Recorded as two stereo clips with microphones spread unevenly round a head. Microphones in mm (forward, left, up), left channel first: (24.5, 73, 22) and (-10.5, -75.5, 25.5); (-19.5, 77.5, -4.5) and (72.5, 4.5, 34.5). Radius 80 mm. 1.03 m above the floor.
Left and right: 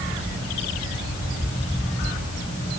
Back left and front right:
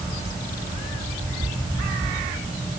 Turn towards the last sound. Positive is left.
No sound to turn to.